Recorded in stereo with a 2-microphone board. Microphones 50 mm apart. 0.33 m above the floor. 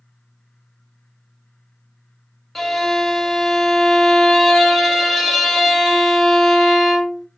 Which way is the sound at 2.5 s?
Centre (ahead or behind).